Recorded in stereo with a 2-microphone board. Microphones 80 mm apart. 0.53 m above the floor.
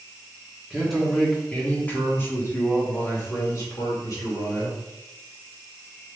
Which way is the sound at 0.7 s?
Centre (ahead or behind).